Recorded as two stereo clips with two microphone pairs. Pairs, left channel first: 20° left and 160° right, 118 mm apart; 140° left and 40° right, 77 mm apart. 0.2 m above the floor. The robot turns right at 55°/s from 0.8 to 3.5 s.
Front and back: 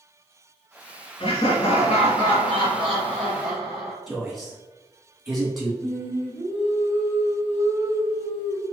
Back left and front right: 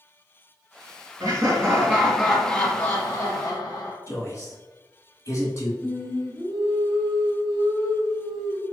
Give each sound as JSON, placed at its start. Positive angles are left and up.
{"t": 1.2, "sound": "laughter", "azimuth_deg": -5, "distance_m": 1.4}
{"t": 4.1, "sound": "a man speaking", "azimuth_deg": 115, "distance_m": 1.5}
{"t": 5.8, "sound": "singing", "azimuth_deg": 80, "distance_m": 1.1}